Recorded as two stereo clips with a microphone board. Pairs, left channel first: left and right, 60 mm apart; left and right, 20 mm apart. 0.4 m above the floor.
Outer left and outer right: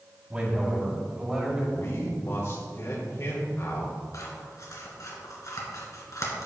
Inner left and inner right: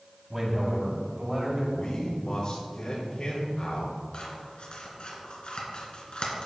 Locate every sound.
0.3 s a man speaking: 25° right (ahead or behind), 2.5 m; by 1.6 s 10° right (ahead or behind), 3.5 m
1.7 s a man speaking: 55° left (ahead or behind), 1.7 m
4.1 s scissors: 65° left (ahead or behind), 2.5 m